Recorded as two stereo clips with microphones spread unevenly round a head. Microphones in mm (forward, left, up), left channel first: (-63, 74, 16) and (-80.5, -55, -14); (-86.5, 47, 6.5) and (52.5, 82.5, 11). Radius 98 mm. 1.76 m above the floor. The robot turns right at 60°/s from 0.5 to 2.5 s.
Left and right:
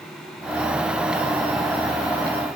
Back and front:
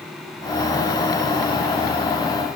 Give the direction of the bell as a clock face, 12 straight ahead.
No bell in this recording.